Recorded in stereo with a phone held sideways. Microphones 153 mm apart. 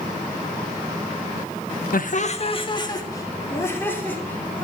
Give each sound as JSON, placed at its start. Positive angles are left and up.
{"t": 1.9, "sound": "laughter", "side_deg": 70, "distance_m": 1.1}